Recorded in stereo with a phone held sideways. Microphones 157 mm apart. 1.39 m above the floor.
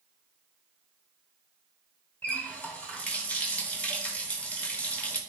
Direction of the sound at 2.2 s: 10° left (ahead or behind).